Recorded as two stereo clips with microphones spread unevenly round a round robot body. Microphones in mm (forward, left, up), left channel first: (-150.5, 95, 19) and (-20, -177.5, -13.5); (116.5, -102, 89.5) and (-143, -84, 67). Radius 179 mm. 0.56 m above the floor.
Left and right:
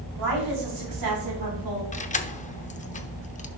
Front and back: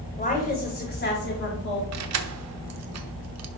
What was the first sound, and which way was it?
A woman speaking, 65° right.